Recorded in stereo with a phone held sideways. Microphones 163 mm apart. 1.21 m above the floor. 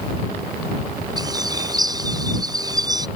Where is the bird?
25° right (ahead or behind).